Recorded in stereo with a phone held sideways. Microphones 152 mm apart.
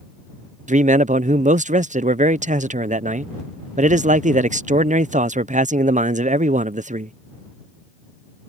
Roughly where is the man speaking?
Right.